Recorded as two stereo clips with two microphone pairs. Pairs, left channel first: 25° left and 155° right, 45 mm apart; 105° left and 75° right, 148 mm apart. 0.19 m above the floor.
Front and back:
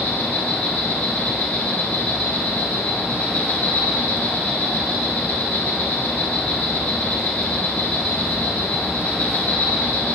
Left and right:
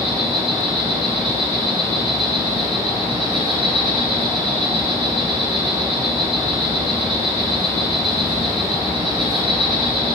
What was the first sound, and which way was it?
An insect, 20° right.